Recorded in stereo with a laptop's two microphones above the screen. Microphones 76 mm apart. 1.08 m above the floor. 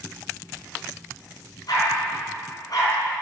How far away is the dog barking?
About 5 m.